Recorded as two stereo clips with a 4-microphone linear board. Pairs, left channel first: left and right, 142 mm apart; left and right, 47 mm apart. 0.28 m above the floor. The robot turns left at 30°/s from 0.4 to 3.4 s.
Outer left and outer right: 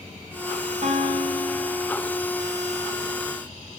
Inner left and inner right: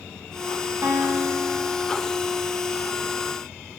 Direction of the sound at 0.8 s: 125° right.